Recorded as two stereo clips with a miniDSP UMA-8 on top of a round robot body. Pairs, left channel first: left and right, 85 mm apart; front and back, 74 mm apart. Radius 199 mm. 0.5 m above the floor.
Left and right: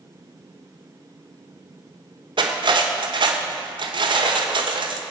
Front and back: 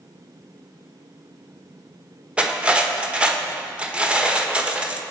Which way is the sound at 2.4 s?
105° right.